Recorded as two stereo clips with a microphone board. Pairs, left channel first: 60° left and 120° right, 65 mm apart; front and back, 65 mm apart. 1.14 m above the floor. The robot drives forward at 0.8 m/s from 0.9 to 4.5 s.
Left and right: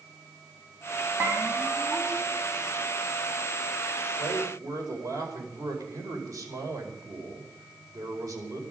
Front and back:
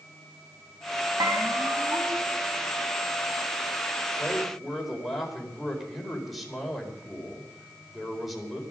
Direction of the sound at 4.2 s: 90° right.